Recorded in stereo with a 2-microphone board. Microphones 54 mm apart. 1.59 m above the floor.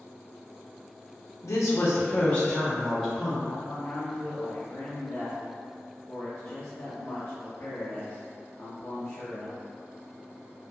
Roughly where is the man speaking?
Left.